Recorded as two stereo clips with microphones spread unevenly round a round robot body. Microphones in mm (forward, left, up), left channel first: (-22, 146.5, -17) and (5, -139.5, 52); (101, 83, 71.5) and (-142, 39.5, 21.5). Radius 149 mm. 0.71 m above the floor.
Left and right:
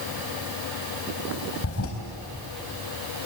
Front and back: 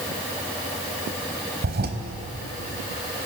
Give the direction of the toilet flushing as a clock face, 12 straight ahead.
7 o'clock.